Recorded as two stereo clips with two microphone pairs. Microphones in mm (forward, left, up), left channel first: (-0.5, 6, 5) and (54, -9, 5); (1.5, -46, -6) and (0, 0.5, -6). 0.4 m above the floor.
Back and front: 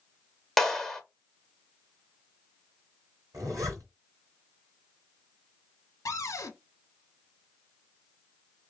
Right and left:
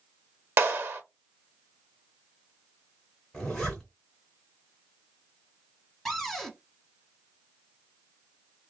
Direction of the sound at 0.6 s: 75° left.